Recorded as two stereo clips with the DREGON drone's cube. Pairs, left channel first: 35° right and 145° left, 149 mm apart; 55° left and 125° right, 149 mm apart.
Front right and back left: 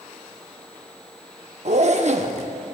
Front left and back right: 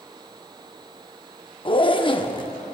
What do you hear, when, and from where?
1.6 s a zipper: 110° left, 0.6 m